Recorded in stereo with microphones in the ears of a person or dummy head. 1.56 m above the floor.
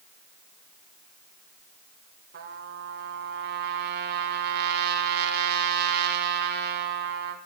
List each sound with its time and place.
2.3 s a trumpet: 65° right (ahead or behind), 1.6 m